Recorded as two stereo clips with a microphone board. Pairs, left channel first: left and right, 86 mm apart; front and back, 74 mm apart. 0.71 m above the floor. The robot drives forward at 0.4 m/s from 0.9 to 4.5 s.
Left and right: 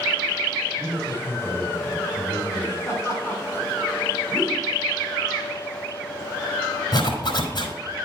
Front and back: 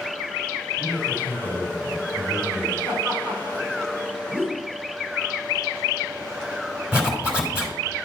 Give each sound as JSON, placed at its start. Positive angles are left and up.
{"t": 0.8, "sound": "a man speaking", "azimuth_deg": -150, "distance_m": 3.5}
{"t": 2.9, "sound": "laughter", "azimuth_deg": 160, "distance_m": 3.5}
{"t": 4.3, "sound": "a whoosh", "azimuth_deg": 125, "distance_m": 2.0}
{"t": 6.9, "sound": "a zipper", "azimuth_deg": 110, "distance_m": 2.5}